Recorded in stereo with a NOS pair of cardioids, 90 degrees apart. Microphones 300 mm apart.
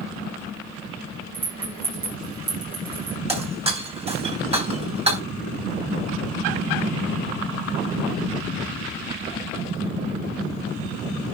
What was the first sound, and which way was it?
A rattle, 15° right.